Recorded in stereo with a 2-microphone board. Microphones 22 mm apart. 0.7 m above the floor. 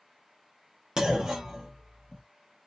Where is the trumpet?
No trumpet in this recording.